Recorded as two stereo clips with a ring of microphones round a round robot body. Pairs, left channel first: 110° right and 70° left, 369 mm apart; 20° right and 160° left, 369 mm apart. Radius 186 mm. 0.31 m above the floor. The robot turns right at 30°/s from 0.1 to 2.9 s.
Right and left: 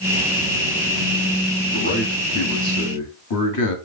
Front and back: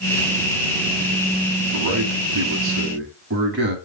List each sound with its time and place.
1.7 s a man speaking: straight behind, 2 m; by 3.8 s 145° right, 2 m